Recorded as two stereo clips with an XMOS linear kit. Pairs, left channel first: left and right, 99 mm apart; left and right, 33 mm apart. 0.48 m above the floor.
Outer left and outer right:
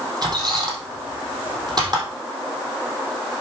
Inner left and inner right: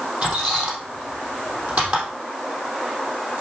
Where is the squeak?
45° right (ahead or behind), 3.5 m.